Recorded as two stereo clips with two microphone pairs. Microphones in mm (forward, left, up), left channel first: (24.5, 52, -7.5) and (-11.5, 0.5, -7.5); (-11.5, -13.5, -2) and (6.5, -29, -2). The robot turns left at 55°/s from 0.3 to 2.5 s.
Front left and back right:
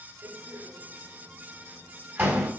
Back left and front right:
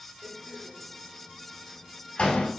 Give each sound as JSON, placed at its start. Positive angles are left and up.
{"t": 0.2, "sound": "a door slam", "azimuth_deg": -75, "distance_m": 5.5}